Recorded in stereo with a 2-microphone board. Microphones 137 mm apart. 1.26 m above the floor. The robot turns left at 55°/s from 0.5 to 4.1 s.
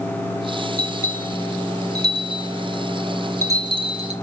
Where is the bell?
55° left (ahead or behind), 3 m; by 4.1 s 55° right (ahead or behind), 3 m.